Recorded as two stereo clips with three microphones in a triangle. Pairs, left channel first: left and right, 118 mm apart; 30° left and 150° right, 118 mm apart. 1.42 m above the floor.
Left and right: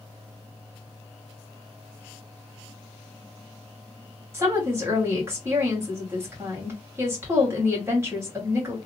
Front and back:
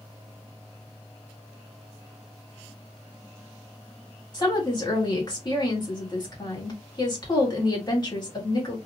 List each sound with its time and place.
4.3 s a woman speaking: 25° right, 1.8 m